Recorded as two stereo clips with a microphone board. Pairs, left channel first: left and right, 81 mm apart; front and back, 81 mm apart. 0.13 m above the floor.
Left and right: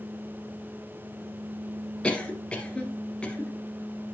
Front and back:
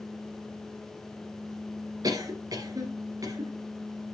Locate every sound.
2.0 s a cough: 160° left, 2.5 m